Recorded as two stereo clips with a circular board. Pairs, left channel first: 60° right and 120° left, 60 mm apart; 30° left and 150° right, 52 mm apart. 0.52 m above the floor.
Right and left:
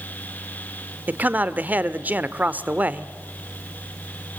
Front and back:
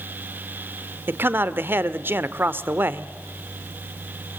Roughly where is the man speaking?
Behind.